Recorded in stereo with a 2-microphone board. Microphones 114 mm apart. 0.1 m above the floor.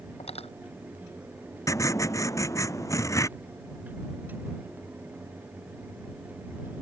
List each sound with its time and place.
0.2 s cutlery clinking: 65° left (ahead or behind)
1.7 s writing: 25° left (ahead or behind)